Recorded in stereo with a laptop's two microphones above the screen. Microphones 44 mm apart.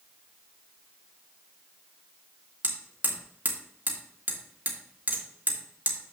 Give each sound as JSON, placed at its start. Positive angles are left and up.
{"t": 2.6, "sound": "hammering", "side_deg": -40, "distance_m": 2.5}